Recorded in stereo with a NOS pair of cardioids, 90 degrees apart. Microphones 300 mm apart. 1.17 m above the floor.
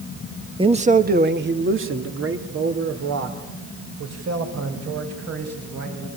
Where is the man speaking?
15° right, 1.5 m; by 6.1 s 60° right, 7.5 m.